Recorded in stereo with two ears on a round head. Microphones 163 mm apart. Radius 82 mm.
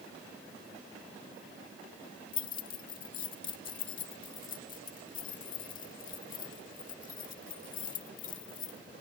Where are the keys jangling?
50° left (ahead or behind).